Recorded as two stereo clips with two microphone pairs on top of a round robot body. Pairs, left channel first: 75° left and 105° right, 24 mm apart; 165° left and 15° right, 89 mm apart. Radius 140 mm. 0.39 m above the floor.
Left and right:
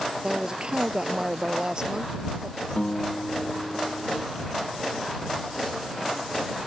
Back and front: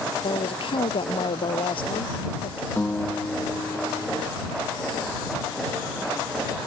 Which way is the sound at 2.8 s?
100° left.